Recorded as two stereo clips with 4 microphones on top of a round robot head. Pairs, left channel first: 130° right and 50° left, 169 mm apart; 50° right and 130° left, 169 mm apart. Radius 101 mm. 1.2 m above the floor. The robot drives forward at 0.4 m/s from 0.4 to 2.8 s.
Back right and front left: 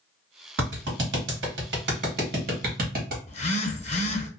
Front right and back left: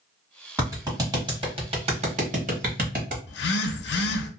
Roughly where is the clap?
Ahead left.